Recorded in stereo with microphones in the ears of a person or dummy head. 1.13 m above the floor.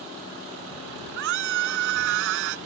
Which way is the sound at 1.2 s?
65° right (ahead or behind).